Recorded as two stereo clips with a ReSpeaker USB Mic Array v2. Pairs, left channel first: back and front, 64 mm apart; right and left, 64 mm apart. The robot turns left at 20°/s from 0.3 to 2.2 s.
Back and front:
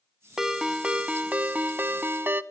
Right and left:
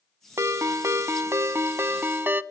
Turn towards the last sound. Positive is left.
turn(degrees=45)